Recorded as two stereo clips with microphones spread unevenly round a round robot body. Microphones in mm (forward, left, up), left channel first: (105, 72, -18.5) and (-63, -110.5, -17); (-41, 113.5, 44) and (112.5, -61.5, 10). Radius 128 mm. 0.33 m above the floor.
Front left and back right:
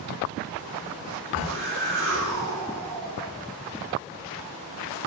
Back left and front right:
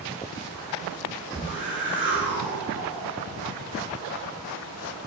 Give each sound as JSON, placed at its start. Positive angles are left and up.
{"t": 1.3, "sound": "a whoosh", "azimuth_deg": -135, "distance_m": 3.5}